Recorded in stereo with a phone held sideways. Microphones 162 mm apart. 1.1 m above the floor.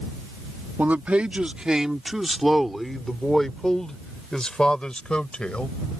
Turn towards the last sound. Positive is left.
turn(degrees=5)  # may be behind; listen again after turning